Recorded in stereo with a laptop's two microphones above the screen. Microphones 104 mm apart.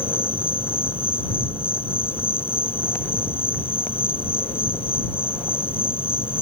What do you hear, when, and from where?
0.0 s an insect: 60° left (ahead or behind)